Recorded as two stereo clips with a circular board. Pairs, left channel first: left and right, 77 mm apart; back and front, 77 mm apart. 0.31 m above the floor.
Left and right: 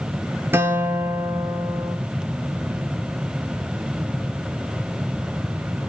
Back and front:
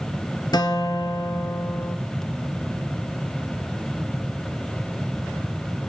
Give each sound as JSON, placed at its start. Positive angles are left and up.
{"t": 0.5, "sound": "a guitar", "azimuth_deg": -150, "distance_m": 2.5}